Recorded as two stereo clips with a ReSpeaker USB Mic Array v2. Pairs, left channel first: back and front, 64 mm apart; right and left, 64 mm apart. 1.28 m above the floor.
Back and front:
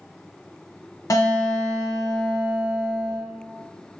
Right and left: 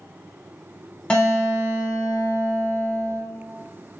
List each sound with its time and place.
1.1 s a guitar: 165° right, 0.7 m